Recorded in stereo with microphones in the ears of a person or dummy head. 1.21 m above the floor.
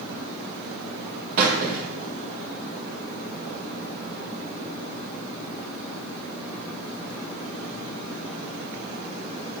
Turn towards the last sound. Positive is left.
turn(degrees=-40)  # may be behind; listen again after turning